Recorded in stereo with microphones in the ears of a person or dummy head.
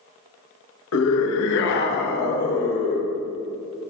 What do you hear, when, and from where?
0.9 s a scream: 80° left, 1.4 m; by 3.1 s 45° left (ahead or behind), 2.5 m